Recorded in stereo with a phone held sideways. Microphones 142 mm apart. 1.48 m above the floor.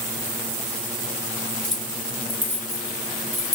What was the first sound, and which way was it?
Keys jangling, 5° left (ahead or behind).